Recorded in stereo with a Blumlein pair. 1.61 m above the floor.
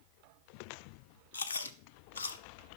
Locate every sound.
1.3 s chewing: 70° left, 1.0 m